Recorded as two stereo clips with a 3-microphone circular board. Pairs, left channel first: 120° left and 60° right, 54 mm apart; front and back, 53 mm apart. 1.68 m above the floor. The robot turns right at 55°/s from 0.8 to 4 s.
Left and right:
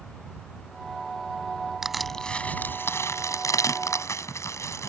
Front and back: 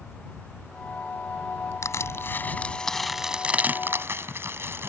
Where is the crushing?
20° left; by 4.9 s 140° left.